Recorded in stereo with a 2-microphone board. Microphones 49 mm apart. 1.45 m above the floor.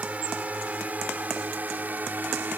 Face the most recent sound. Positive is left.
turn(degrees=-45)  # may be behind; listen again after turning